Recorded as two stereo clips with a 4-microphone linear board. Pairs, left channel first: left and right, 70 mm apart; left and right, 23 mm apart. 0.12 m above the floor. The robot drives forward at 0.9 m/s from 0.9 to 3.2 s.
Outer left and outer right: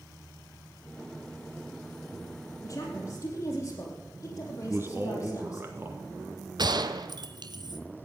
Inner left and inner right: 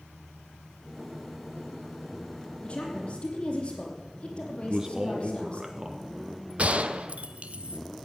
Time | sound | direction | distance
2.6 | a woman speaking | 50° left (ahead or behind) | 4 m
4.6 | a man speaking | 35° right (ahead or behind) | 1.9 m
6.6 | a gunshot | 80° right | 0.7 m